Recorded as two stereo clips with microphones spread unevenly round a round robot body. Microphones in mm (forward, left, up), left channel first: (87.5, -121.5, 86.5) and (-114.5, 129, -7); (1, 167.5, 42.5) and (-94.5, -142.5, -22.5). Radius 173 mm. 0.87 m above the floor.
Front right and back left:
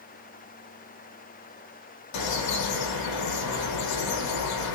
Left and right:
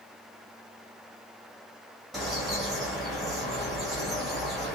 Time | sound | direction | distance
2.1 | a bird | 20° right | 1.1 m